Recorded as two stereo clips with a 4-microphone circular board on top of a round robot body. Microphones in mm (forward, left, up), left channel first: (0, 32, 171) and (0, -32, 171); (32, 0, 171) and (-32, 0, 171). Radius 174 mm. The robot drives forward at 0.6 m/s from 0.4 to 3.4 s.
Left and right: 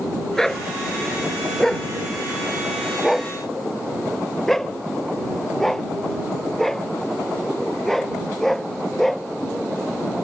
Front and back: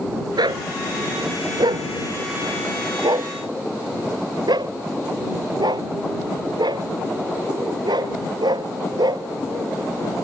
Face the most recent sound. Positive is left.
turn(degrees=175)